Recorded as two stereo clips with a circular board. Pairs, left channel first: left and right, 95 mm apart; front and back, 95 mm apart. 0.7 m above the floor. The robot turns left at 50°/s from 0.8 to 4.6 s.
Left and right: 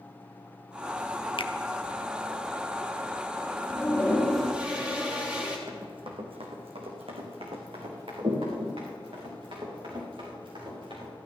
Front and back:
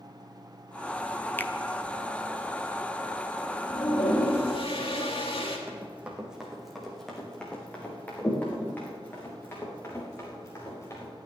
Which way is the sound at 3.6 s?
35° left.